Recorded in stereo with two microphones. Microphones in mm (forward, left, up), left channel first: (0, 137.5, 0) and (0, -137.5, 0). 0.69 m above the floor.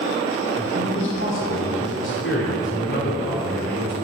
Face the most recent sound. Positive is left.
turn(degrees=50)  # may be behind; listen again after turning